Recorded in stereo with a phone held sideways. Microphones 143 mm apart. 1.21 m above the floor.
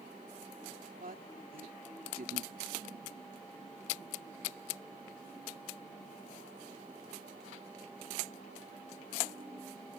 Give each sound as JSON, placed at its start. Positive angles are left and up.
{"t": 1.0, "sound": "a woman speaking", "side_deg": -85}